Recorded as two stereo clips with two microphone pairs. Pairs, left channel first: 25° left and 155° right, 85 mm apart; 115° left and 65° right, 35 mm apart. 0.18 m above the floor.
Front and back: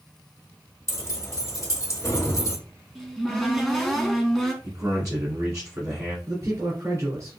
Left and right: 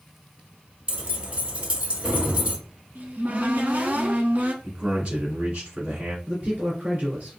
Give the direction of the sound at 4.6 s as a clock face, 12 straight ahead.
4 o'clock.